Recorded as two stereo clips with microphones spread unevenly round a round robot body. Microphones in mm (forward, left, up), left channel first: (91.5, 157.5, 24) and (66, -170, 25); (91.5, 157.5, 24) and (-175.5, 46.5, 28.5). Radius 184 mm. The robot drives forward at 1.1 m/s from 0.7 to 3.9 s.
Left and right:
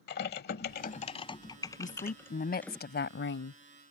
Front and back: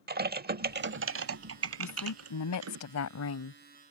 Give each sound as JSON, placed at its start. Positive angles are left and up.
{"t": 0.1, "sound": "typing on a keyboard", "azimuth_deg": 145}
{"t": 1.8, "sound": "a woman speaking", "azimuth_deg": 20}